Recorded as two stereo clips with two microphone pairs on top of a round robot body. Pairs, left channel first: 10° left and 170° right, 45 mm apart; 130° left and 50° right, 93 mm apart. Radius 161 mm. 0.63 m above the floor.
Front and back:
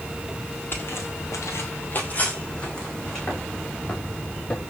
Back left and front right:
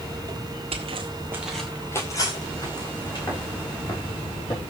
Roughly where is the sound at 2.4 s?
Left.